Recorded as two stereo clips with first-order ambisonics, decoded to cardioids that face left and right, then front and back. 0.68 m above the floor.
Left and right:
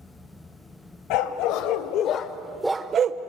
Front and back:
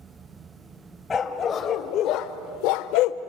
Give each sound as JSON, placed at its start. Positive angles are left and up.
{"t": 1.1, "sound": "a dog barking", "azimuth_deg": 70, "distance_m": 1.7}